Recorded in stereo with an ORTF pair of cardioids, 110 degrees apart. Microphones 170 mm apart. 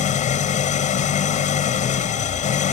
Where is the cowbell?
I don't hear a cowbell.